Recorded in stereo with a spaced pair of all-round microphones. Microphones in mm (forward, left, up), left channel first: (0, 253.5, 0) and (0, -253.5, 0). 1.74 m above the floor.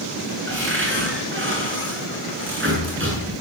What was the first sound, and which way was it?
A cupboard door, 25° right (ahead or behind).